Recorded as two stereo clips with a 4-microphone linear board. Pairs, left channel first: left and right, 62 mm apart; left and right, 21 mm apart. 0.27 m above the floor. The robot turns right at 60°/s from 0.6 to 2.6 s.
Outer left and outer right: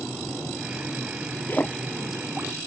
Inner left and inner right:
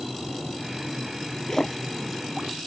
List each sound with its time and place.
1.5 s a splash: 35° left (ahead or behind); by 2.5 s 25° right (ahead or behind)